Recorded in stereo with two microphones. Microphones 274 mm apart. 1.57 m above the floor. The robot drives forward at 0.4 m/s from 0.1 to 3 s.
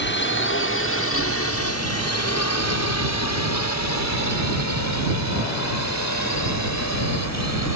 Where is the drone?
40° left (ahead or behind); by 7.8 s 75° left (ahead or behind).